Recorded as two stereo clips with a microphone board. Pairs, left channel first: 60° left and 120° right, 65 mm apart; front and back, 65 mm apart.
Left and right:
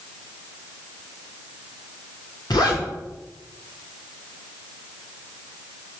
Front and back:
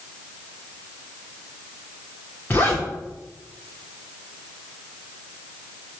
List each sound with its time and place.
2.5 s a zipper: 60° left, 5 m